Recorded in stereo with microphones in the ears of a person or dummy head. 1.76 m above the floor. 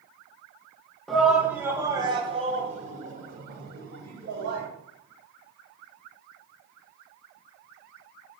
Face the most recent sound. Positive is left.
turn(degrees=-70)  # may be behind; listen again after turning